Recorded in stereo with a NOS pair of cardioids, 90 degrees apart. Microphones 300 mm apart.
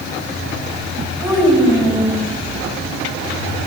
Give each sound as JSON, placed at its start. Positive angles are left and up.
{"t": 1.2, "sound": "a child speaking", "azimuth_deg": -15, "distance_m": 5.5}